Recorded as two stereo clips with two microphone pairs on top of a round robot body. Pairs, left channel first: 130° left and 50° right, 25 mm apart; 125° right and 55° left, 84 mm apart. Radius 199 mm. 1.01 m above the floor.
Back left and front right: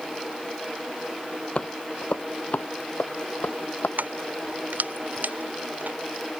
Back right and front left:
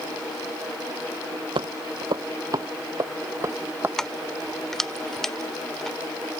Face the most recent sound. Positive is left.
turn(degrees=-40)